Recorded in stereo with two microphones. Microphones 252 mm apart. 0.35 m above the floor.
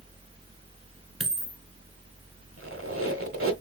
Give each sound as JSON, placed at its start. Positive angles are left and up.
{"t": 1.2, "sound": "a dropped coin", "side_deg": -65, "distance_m": 1.3}
{"t": 2.6, "sound": "a squeak", "side_deg": -55, "distance_m": 1.3}